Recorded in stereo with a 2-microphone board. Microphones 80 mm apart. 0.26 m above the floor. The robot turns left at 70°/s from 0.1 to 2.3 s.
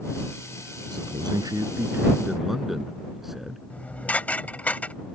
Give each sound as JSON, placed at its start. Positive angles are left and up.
{"t": 0.9, "sound": "a man speaking", "azimuth_deg": -80}
{"t": 3.7, "sound": "dishes clattering", "side_deg": 20}